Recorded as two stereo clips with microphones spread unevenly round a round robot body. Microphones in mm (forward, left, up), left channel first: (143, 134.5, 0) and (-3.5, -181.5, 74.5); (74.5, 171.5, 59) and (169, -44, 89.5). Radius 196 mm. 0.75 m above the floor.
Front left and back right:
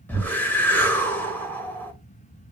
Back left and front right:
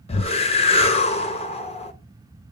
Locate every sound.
0.1 s a whoosh: 125° left, 1.0 m